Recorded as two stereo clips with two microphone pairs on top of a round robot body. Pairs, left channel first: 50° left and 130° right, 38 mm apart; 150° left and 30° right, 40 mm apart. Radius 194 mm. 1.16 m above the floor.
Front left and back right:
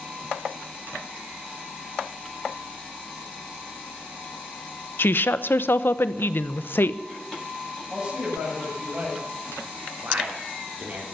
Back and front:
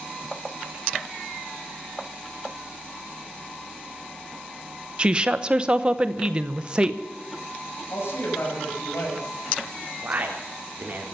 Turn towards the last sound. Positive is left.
turn(degrees=-80)